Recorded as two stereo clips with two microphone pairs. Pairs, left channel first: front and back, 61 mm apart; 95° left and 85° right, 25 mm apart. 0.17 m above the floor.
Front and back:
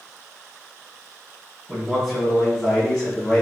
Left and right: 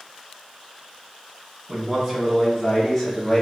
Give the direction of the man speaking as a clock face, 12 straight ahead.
4 o'clock.